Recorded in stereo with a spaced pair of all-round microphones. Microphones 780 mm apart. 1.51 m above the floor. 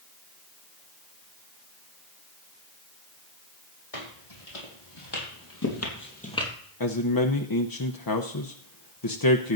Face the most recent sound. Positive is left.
turn(degrees=30)  # may be behind; listen again after turning